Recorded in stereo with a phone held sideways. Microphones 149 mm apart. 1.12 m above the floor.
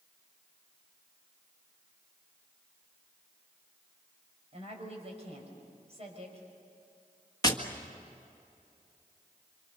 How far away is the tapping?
About 1.8 m.